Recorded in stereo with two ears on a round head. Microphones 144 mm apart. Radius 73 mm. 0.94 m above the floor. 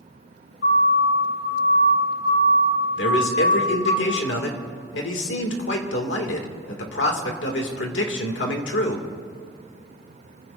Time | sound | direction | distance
0.6 | a siren | 70° left (ahead or behind) | 6 m
3.0 | a man speaking | 80° left | 2.5 m